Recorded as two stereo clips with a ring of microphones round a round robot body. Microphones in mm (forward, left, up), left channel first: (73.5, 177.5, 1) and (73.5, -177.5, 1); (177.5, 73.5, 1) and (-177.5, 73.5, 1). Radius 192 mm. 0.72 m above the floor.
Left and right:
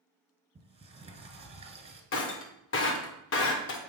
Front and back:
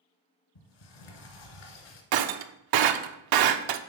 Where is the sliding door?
15° right, 1.5 m.